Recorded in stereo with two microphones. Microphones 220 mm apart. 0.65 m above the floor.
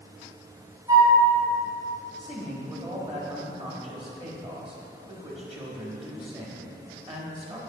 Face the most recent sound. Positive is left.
turn(degrees=-25)  # may be behind; listen again after turning